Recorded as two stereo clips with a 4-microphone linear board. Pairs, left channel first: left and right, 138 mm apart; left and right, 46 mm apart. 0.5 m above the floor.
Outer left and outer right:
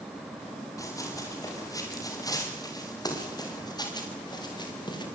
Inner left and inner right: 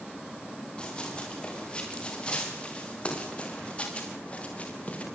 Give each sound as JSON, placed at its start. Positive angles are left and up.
{"t": 0.8, "sound": "running footsteps", "side_deg": 25, "distance_m": 8.0}